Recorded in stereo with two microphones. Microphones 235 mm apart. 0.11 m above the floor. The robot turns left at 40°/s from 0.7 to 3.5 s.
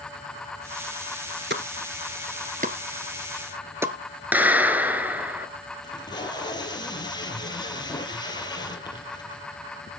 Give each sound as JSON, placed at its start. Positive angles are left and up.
{"t": 1.5, "sound": "a pop", "side_deg": -50, "distance_m": 1.3}
{"t": 4.3, "sound": "a clap", "side_deg": -5, "distance_m": 1.5}
{"t": 5.8, "sound": "tape being pulled", "side_deg": 20, "distance_m": 3.0}